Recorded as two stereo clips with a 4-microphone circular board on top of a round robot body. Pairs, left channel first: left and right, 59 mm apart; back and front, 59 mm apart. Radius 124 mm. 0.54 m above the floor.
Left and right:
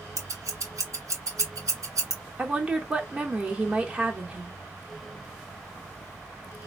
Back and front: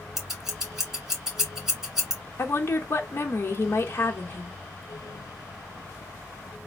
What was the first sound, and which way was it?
Scissors, 80° right.